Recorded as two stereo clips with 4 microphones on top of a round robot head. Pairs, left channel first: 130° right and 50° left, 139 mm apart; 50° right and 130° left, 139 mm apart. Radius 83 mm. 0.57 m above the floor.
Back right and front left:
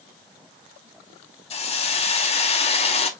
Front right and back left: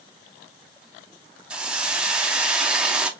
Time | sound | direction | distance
1.5 | a hiss | 150° right | 0.8 m